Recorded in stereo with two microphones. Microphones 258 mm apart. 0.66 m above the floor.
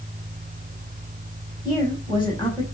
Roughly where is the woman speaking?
Centre.